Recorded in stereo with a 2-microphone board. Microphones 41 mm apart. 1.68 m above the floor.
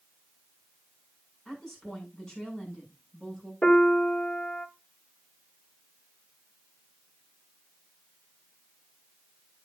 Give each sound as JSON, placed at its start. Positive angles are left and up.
{"t": 1.4, "sound": "a woman speaking", "side_deg": 15, "distance_m": 7.5}
{"t": 3.6, "sound": "a piano", "side_deg": 25, "distance_m": 1.4}